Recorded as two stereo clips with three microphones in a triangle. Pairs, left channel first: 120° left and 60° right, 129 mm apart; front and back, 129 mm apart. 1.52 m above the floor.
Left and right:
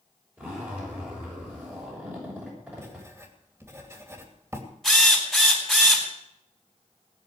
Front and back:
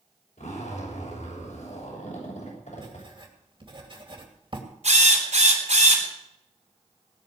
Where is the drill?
155° right, 4 m.